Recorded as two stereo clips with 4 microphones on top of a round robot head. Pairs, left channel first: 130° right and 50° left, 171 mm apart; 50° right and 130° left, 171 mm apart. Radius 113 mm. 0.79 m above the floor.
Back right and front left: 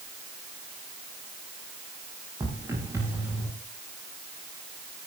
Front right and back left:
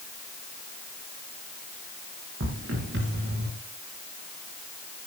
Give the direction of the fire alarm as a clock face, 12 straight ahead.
I don't hear a fire alarm.